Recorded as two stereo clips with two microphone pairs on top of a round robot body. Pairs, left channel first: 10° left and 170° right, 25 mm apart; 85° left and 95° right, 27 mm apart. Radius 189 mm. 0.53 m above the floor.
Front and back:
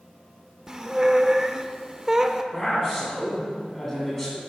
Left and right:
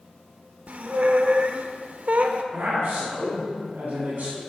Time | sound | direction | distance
0.7 | a squeak | 105° right | 0.8 m
2.5 | a man speaking | 60° right | 2.5 m